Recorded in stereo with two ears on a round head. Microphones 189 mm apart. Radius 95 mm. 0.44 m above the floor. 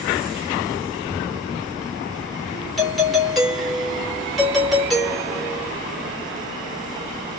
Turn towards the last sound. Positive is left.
turn(degrees=0)  # may be behind; listen again after turning